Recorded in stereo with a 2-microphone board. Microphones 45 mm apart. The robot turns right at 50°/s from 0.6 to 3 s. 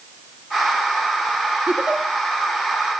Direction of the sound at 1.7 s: 50° right (ahead or behind).